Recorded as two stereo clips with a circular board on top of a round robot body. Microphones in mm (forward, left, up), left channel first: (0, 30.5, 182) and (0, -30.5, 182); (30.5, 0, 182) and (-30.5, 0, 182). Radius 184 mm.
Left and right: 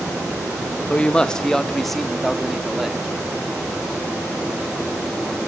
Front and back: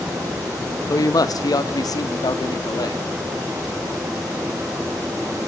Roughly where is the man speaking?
Ahead.